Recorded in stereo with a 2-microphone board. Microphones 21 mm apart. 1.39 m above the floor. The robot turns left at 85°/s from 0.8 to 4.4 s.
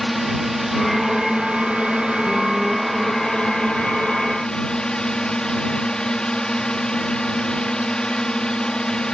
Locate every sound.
0.0 s a drone: 10° right; by 9.1 s 40° left